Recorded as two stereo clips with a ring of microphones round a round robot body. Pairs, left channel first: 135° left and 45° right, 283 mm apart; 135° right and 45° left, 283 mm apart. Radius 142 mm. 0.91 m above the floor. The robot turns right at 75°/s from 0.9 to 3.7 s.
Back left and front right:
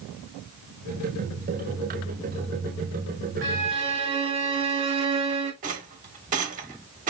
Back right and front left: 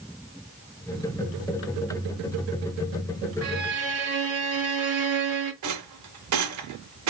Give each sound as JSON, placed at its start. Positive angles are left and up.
{"t": 3.4, "sound": "a violin", "azimuth_deg": 5, "distance_m": 1.7}
{"t": 5.6, "sound": "a rattle", "azimuth_deg": 20, "distance_m": 0.9}